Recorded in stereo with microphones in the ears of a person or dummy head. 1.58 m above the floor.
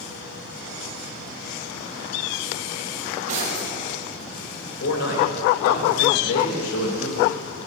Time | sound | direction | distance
3.0 | cutlery clinking | 40° right (ahead or behind) | 5.5 m
4.8 | a man speaking | 80° left | 3 m